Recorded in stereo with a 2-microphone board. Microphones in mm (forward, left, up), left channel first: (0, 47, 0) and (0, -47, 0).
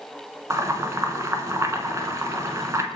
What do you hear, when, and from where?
0.5 s boiling: 35° right (ahead or behind), 0.8 m